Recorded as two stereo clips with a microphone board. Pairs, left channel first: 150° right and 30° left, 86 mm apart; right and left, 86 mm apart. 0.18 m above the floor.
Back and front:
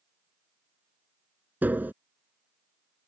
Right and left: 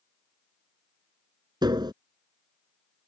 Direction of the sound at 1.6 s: 95° left.